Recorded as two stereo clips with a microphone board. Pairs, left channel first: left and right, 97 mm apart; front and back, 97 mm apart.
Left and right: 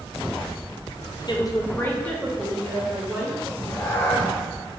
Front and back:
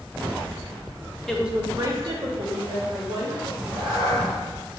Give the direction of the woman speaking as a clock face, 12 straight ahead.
9 o'clock.